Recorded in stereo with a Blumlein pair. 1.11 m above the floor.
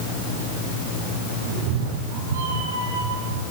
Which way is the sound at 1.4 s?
50° right.